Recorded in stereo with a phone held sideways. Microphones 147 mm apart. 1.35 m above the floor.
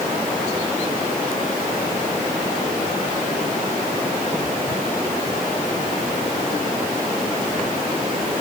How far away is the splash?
No splash in this recording.